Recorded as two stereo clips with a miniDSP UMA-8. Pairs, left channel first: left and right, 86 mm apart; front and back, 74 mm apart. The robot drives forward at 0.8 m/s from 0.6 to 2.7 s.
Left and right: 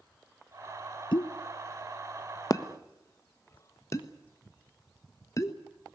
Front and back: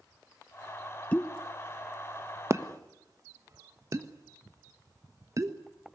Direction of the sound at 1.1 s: 70° left.